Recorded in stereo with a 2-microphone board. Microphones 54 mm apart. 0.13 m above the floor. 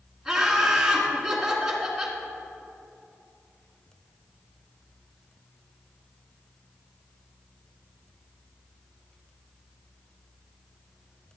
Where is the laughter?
10° right (ahead or behind), 1.8 m.